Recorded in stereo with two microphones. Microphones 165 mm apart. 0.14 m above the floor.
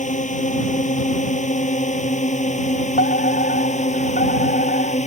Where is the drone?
50° left (ahead or behind); by 5.1 s 45° left (ahead or behind).